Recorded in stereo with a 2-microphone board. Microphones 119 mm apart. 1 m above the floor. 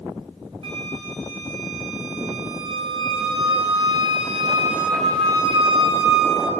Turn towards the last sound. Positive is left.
turn(degrees=-50)  # may be behind; listen again after turning